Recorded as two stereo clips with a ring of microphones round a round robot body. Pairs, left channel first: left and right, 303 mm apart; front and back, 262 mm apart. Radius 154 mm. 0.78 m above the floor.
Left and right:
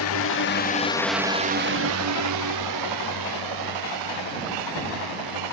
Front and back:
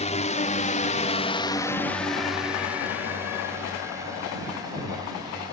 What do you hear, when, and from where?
0.0 s a drone: 60° left; by 5.5 s 100° right